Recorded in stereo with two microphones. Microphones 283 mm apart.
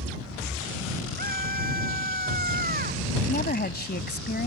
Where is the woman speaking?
35° left (ahead or behind).